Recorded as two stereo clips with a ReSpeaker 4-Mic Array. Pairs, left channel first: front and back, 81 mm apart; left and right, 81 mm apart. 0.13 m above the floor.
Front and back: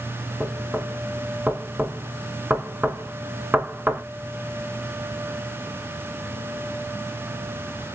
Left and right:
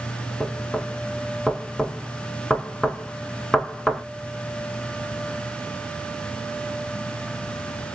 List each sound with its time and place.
0.4 s knocking: 170° left, 0.7 m